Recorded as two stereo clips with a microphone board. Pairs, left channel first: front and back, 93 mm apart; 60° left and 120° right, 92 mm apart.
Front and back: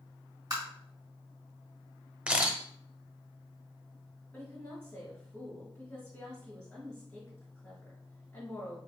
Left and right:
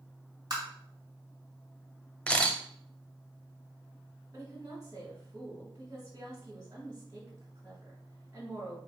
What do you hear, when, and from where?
0.5 s tapping: 145° right, 2.5 m
2.3 s a camera shutter: 120° left, 0.7 m
4.3 s a woman speaking: 65° right, 2 m